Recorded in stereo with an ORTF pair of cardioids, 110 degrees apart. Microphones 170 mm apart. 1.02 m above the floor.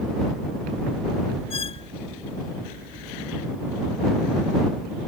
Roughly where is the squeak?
Ahead left.